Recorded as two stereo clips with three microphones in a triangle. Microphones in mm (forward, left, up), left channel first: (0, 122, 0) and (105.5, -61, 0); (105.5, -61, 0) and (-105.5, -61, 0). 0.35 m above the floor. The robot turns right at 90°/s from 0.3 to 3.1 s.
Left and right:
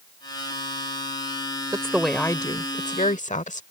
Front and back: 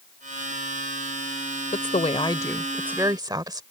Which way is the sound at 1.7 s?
Straight ahead.